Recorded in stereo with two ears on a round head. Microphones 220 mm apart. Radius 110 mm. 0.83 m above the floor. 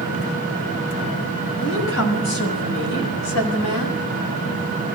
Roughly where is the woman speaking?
Left.